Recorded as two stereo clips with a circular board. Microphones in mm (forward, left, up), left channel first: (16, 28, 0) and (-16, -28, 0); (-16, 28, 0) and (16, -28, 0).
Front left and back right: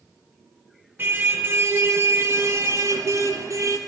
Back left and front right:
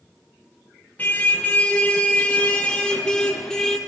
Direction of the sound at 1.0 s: 175° right.